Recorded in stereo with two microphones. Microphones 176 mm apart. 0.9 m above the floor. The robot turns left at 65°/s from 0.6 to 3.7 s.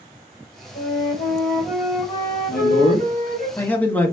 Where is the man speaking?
90° left, 1.4 m; by 4.1 s 10° left, 1.4 m.